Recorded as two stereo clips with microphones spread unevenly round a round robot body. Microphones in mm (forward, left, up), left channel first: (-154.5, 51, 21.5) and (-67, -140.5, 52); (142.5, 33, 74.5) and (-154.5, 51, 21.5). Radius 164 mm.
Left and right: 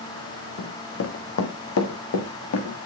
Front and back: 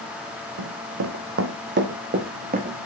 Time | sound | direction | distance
0.6 | running footsteps | 140° left | 1.5 m